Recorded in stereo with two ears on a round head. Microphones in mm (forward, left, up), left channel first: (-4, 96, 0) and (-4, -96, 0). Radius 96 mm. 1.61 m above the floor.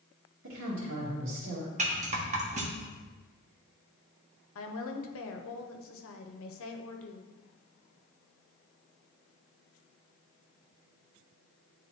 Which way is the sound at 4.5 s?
70° left (ahead or behind).